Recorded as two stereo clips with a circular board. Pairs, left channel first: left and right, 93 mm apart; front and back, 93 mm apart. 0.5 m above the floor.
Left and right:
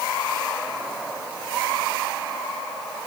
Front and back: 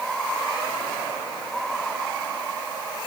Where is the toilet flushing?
I don't hear a toilet flushing.